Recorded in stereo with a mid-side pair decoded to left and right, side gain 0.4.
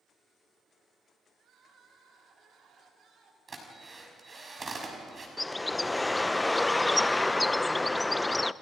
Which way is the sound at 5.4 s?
15° left.